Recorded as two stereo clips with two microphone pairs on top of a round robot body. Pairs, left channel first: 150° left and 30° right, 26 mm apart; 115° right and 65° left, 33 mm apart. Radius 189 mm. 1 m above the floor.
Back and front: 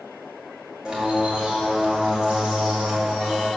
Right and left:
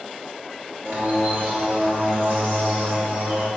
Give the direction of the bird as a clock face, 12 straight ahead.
11 o'clock.